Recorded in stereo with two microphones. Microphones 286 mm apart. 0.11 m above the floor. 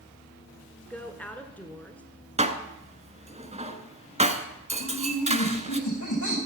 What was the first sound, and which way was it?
A woman speaking, 5° left (ahead or behind).